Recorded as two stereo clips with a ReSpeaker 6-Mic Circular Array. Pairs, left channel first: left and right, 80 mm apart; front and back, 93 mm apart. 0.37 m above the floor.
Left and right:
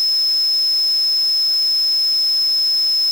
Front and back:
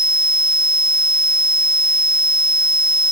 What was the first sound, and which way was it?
Only background noise.